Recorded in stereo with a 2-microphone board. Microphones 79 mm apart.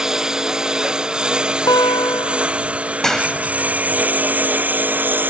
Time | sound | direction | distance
0.0 | a lawn mower | 10° right (ahead or behind) | ?
1.7 | a guitar | 65° left (ahead or behind) | ?
3.0 | a clap | 5° left (ahead or behind) | ?